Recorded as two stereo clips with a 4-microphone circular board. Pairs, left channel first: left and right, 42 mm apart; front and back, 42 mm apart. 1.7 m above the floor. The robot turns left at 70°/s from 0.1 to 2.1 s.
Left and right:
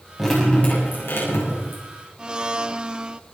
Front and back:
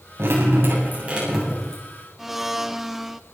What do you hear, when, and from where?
0.2 s dripping: straight behind, 7.5 m; by 1.8 s 65° left, 7.5 m
2.2 s a blender: 110° right, 0.6 m